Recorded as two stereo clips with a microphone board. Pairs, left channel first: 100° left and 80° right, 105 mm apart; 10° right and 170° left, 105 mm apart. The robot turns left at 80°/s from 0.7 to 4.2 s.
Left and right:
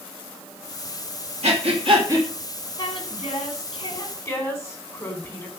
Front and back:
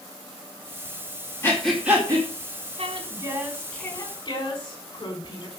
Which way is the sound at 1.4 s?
75° right.